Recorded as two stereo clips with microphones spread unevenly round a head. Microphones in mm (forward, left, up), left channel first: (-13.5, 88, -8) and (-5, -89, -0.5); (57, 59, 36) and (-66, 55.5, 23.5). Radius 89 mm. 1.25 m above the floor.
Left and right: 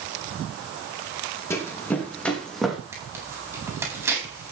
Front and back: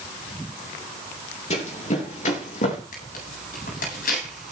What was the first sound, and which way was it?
Running footsteps, 15° left.